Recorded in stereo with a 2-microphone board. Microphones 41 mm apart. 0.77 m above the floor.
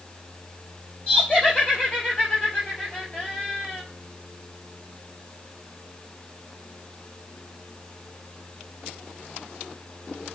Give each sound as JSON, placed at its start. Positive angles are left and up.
{"t": 1.1, "sound": "laughter", "side_deg": 25, "distance_m": 3.0}